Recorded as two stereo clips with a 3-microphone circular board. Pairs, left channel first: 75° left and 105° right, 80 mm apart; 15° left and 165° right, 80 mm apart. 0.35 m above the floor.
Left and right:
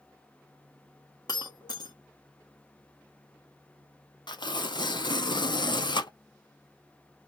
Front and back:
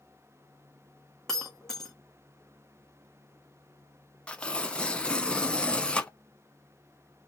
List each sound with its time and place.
1.3 s breaking glass: 100° left, 1.2 m
4.3 s tearing paper: 90° left, 0.7 m